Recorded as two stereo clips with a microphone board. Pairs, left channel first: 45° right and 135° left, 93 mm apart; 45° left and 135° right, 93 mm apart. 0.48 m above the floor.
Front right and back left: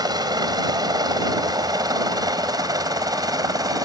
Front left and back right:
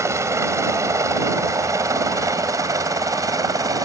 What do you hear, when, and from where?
0.0 s a helicopter: 170° left; by 3.9 s straight behind